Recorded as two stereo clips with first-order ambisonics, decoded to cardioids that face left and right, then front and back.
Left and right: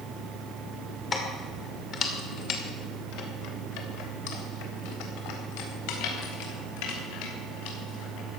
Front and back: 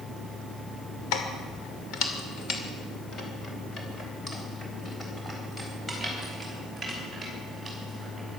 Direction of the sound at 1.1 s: 20° left.